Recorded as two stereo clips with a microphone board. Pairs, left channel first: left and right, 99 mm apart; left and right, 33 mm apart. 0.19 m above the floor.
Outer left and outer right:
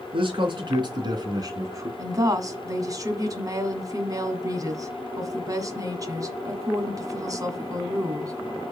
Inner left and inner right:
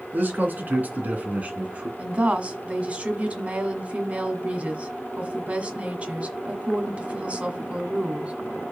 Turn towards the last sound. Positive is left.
turn(degrees=-35)  # may be behind; listen again after turning